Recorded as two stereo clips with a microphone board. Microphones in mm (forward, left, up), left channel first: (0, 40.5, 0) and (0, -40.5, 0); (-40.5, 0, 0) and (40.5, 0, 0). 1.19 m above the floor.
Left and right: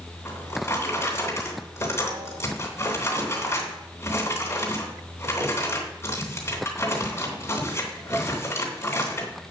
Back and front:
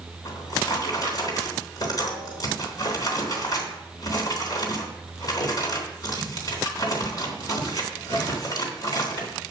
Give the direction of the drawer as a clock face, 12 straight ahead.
7 o'clock.